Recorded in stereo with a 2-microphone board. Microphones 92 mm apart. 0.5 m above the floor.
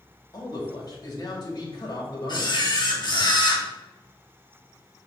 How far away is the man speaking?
About 2.5 m.